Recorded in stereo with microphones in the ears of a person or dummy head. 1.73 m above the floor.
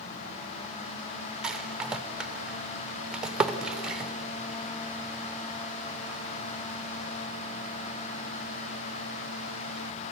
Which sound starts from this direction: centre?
A rattle, at 1.4 s.